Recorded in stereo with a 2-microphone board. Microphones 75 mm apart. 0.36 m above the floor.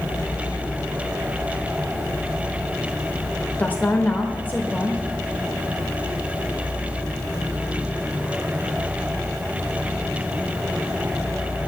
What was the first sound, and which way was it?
A woman speaking, 20° left (ahead or behind).